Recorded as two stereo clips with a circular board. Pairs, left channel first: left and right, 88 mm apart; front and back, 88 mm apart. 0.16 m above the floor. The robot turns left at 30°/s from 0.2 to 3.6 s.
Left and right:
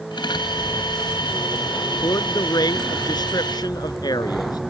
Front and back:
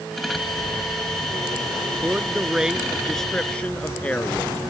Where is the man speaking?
120° left; by 4.6 s 70° left.